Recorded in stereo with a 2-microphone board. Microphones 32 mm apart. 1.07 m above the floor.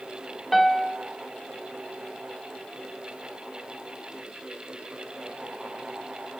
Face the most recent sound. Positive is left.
turn(degrees=0)  # may be behind; listen again after turning